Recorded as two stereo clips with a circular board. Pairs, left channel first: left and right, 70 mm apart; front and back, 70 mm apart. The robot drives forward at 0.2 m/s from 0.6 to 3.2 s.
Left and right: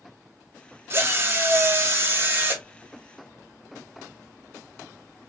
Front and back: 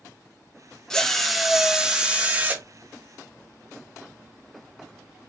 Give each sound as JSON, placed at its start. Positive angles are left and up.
{"t": 0.9, "sound": "a drill", "azimuth_deg": -75, "distance_m": 0.5}